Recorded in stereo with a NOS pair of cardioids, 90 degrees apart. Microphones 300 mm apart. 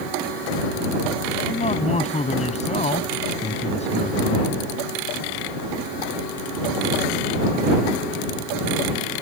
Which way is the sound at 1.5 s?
20° left.